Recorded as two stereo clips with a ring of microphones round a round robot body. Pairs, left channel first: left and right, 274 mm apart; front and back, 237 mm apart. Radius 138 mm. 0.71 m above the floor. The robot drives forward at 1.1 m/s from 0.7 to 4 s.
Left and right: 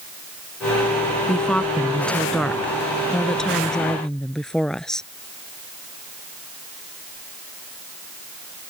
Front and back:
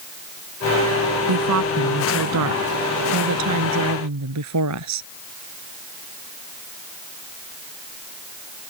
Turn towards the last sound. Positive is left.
turn(degrees=180)